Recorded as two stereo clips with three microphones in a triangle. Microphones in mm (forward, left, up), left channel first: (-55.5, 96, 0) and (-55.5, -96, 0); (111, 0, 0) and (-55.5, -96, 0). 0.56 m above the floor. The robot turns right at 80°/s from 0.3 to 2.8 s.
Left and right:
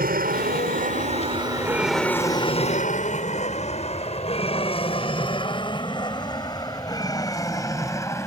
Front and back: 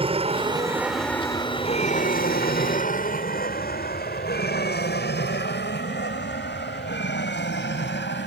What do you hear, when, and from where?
0.0 s an aircraft: 100° right; by 8.3 s 15° left